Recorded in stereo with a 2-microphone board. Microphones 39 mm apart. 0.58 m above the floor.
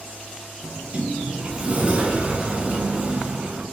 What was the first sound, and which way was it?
A sliding door, 30° right (ahead or behind).